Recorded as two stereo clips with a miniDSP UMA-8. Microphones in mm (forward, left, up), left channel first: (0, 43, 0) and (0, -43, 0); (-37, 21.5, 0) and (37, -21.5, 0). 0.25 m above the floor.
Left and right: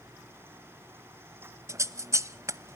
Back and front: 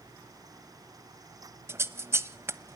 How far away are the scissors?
About 1.0 m.